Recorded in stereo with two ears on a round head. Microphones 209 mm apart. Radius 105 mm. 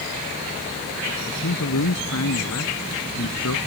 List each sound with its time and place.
1.3 s a man speaking: 80° left